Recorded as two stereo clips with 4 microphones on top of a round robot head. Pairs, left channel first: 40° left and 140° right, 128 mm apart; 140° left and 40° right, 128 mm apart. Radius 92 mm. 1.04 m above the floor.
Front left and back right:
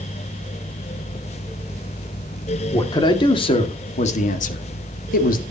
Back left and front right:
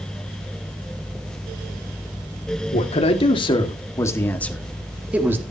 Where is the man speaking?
100° left, 2.5 m; by 5.4 s 35° left, 2.0 m.